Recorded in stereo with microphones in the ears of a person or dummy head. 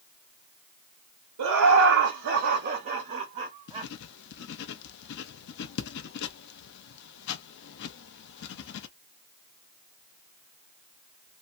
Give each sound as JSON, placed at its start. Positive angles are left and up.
{"t": 1.4, "sound": "laughter", "side_deg": -80, "distance_m": 0.9}
{"t": 3.7, "sound": "writing", "side_deg": 60, "distance_m": 0.6}